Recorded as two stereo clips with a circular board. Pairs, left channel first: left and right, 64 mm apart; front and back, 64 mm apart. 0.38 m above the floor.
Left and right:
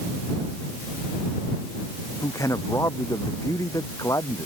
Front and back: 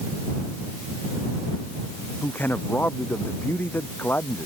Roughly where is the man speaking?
Ahead left.